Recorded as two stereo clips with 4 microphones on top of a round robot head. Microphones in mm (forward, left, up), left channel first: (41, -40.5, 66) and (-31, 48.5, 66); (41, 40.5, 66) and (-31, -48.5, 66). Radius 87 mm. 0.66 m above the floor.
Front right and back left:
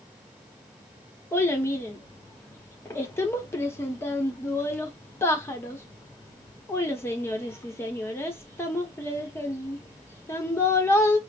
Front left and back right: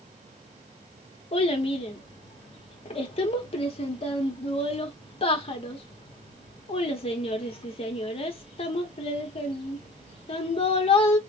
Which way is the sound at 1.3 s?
15° left.